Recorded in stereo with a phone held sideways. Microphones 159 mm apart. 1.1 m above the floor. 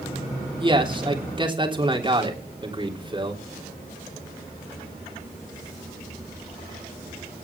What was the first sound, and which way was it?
A man speaking, 30° right (ahead or behind).